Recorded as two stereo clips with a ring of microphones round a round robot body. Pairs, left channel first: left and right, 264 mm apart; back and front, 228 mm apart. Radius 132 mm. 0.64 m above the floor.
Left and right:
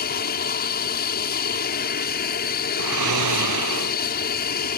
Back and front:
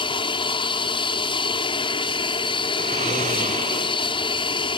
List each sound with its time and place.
0.0 s an aircraft: 125° left
2.8 s snoring: 65° right